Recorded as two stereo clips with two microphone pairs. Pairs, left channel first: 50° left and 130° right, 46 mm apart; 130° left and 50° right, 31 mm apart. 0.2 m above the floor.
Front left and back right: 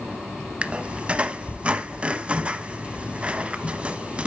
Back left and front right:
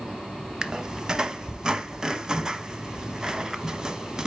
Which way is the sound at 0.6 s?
95° right.